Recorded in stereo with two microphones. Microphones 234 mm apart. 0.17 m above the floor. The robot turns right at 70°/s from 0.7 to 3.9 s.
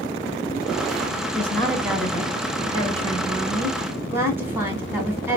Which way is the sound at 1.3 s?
10° left (ahead or behind).